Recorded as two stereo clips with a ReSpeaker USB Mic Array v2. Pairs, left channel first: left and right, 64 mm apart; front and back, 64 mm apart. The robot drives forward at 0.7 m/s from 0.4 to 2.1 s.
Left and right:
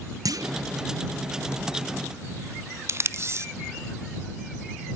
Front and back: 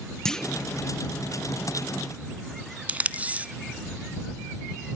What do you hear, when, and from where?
0.2 s a clunk: 80° right, 0.7 m; by 0.7 s 95° right, 0.7 m
2.9 s tape being pulled: 120° right, 0.7 m